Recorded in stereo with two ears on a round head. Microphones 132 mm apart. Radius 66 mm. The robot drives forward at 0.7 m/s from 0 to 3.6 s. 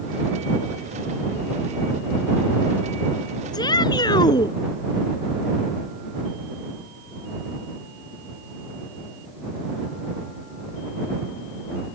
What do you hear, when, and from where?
3.5 s a shout: 25° left (ahead or behind)